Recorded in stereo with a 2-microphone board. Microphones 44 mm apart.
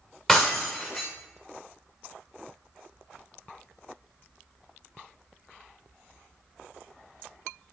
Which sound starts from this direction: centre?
Breaking glass, at 0.3 s.